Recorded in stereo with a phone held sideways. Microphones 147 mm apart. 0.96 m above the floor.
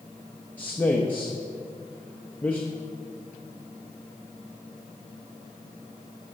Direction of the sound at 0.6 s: 10° left (ahead or behind).